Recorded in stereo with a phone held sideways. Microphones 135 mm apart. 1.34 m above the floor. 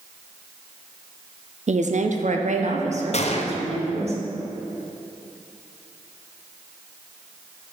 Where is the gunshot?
55° left (ahead or behind), 0.6 m.